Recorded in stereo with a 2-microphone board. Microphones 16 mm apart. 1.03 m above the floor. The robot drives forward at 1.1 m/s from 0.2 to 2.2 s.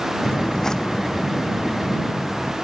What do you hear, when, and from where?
0.2 s footsteps: 40° left (ahead or behind); by 2.5 s centre (ahead or behind)